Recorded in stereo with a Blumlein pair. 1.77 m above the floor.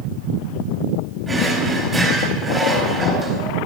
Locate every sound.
1.3 s a drawer: 10° right, 3.5 m